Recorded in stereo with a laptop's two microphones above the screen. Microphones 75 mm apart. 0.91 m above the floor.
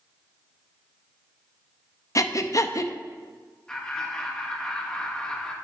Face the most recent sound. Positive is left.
turn(degrees=10)  # may be behind; listen again after turning